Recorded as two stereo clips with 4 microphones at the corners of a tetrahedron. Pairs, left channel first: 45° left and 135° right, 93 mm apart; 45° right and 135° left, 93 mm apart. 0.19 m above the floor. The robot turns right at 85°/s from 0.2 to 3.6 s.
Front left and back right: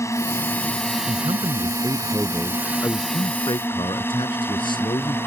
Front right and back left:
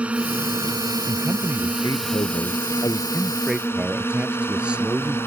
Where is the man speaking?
160° right; by 5.2 s 60° left.